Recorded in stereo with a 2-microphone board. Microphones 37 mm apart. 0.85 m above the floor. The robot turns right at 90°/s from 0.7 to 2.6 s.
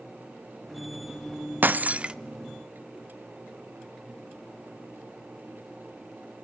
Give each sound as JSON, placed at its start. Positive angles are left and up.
{"t": 1.6, "sound": "breaking glass", "azimuth_deg": -70, "distance_m": 0.5}